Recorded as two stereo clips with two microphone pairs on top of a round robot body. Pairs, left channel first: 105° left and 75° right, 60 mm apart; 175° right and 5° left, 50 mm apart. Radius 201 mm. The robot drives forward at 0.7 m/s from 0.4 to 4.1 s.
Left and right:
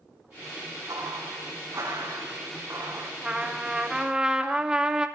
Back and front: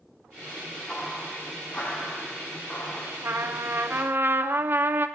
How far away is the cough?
I don't hear a cough.